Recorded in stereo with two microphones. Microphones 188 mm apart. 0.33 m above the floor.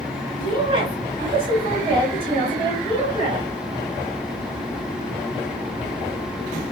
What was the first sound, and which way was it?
A woman speaking, 30° right (ahead or behind).